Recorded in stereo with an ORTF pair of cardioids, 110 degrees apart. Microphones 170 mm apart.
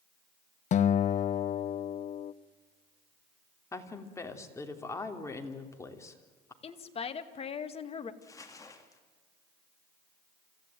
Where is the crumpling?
20° left, 3 m.